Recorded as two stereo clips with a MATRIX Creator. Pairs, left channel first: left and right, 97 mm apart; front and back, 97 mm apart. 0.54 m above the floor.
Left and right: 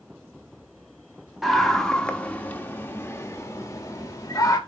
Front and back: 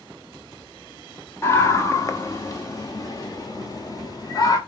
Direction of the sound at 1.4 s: 5° right.